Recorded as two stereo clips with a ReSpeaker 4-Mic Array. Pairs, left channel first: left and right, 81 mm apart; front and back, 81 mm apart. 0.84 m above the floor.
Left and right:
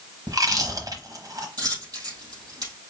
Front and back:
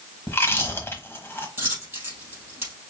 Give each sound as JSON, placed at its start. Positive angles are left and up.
{"t": 0.3, "sound": "chewing", "azimuth_deg": -55, "distance_m": 1.1}
{"t": 1.6, "sound": "a dropped coin", "azimuth_deg": -125, "distance_m": 3.0}